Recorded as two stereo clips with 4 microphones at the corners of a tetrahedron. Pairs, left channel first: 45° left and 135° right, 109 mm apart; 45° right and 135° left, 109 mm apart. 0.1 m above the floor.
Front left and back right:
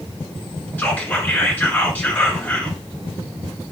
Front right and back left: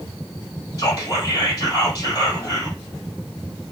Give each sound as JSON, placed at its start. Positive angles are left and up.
{"t": 0.8, "sound": "whispering", "azimuth_deg": -20, "distance_m": 1.3}